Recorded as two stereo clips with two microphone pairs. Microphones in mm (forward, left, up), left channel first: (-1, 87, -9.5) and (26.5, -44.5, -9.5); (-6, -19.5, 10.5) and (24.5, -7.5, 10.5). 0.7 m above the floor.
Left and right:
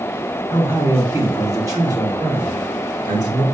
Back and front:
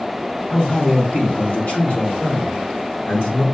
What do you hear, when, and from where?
0.5 s a man speaking: 145° right, 1.2 m; by 3.4 s 130° right, 2.5 m